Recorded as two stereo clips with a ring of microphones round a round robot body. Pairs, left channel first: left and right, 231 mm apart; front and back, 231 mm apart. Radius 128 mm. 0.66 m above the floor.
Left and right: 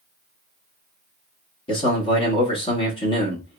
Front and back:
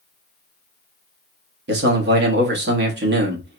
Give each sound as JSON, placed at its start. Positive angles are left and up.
{"t": 1.7, "sound": "a man speaking", "azimuth_deg": 155, "distance_m": 0.9}